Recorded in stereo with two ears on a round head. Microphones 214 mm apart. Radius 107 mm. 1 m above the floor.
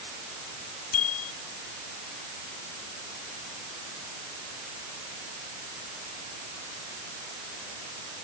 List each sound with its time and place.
0.9 s a bicycle bell: 65° left (ahead or behind)